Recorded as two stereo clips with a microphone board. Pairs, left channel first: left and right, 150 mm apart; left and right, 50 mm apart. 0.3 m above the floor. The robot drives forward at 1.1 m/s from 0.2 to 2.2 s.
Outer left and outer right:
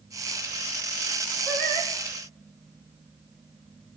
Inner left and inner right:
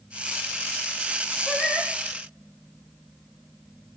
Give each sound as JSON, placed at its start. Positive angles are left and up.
{"t": 1.5, "sound": "singing", "side_deg": 0, "distance_m": 7.0}